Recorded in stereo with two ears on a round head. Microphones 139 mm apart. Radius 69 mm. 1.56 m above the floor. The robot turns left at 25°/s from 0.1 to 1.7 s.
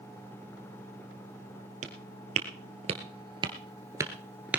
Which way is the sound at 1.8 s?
50° right (ahead or behind).